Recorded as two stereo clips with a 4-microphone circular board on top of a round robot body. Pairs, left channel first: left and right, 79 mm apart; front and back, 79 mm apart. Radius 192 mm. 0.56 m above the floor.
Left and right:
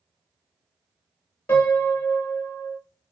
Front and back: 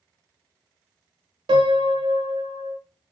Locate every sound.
1.5 s a piano: 155° left, 0.6 m